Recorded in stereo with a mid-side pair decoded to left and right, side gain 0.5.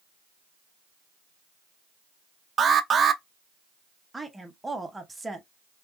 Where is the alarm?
40° right, 0.6 m.